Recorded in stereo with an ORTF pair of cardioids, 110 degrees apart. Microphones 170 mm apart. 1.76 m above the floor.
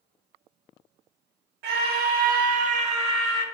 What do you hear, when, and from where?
1.6 s a scream: 70° right, 1.5 m; by 3.5 s 25° right, 1.4 m